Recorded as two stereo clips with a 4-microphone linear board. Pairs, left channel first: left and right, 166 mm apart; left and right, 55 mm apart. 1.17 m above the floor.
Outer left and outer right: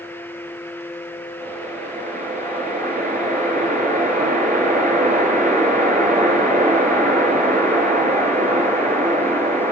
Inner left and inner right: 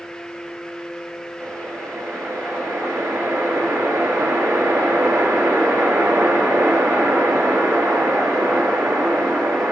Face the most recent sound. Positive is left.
turn(degrees=-50)  # may be behind; listen again after turning